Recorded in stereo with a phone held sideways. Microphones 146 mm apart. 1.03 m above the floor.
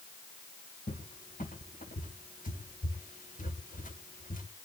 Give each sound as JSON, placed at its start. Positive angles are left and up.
{"t": 0.9, "sound": "a cupboard door", "side_deg": 70, "distance_m": 2.5}